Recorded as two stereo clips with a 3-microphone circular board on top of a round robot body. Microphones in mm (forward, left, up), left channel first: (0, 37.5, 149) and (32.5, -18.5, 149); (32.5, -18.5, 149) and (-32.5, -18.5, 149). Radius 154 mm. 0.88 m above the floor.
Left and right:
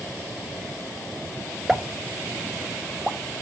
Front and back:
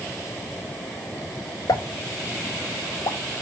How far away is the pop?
About 0.8 m.